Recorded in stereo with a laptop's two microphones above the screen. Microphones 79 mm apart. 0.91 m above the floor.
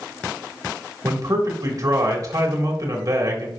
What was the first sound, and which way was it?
A man speaking, 50° right (ahead or behind).